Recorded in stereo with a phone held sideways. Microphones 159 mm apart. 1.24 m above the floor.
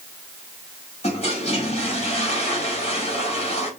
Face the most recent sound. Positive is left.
turn(degrees=40)  # may be behind; listen again after turning